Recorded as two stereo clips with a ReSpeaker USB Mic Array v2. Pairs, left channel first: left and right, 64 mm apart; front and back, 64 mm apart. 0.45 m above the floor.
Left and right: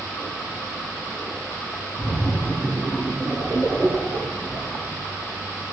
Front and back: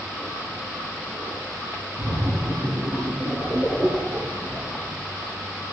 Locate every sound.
2.0 s a splash: 170° left, 3.5 m